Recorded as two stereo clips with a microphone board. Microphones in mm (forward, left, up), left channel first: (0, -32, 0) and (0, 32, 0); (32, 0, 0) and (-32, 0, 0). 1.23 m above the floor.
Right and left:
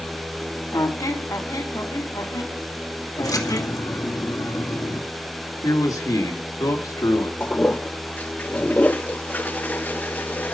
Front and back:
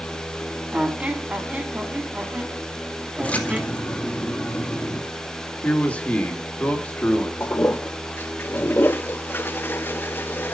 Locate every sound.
0.7 s a squeak: 115° right, 1.8 m
3.2 s a splash: 65° right, 2.5 m
5.6 s a man speaking: 65° right, 2.5 m
7.4 s a toilet flushing: 35° right, 0.7 m